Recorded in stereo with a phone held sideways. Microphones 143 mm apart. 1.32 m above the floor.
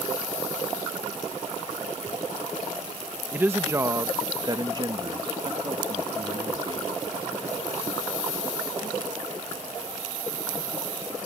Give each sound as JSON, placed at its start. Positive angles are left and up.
{"t": 3.3, "sound": "a woman speaking", "side_deg": -15}